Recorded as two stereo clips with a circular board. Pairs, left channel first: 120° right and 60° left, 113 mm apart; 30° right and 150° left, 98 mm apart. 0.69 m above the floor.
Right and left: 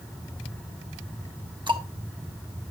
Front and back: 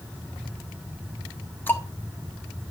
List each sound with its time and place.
1.7 s ticking: 30° left, 1.0 m